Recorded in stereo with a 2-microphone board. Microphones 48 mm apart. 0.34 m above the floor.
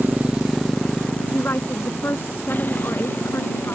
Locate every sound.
0.0 s a motorcycle: 40° right (ahead or behind); by 3.8 s 45° left (ahead or behind)
1.3 s a woman speaking: 55° left (ahead or behind)